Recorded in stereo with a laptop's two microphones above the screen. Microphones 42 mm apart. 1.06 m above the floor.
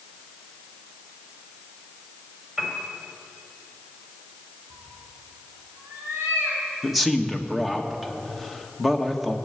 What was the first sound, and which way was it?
A piano, 10° right (ahead or behind).